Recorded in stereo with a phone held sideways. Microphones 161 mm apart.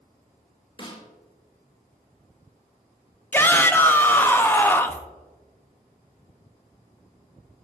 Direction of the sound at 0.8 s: 35° left (ahead or behind).